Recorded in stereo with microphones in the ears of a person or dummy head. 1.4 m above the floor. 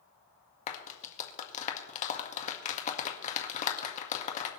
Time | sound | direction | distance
0.7 | a clap | 40° left (ahead or behind) | 1.7 m